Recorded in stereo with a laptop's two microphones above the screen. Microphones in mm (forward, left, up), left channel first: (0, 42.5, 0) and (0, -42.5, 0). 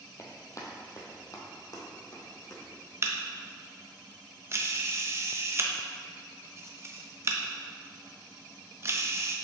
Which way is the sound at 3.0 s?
35° right (ahead or behind).